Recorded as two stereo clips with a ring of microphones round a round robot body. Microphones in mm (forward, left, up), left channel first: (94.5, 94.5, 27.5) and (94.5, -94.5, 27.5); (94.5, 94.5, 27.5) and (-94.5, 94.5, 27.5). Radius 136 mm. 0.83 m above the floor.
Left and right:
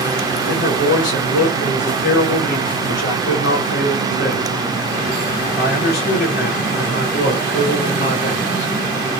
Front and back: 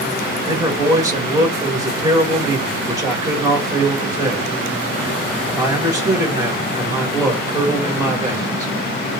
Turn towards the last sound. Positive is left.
turn(degrees=110)